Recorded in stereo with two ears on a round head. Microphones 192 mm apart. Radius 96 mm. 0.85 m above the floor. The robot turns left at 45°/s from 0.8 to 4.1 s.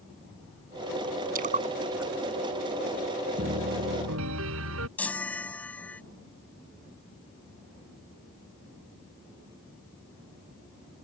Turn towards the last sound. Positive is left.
turn(degrees=5)  # may be behind; listen again after turning